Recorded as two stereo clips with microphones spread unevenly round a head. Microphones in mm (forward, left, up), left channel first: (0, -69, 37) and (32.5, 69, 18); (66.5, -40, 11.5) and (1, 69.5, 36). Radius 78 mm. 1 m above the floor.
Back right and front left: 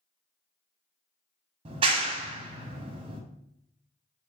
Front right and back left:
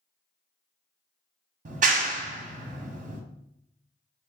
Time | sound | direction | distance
1.6 | a clap | 110° left | 0.7 m